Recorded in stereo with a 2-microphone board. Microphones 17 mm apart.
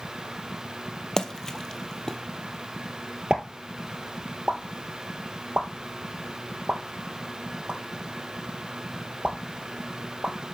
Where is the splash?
30° left (ahead or behind), 0.7 m.